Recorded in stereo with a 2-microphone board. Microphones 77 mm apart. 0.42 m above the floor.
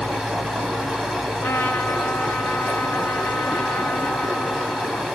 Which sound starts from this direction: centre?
Running water, at 0.0 s.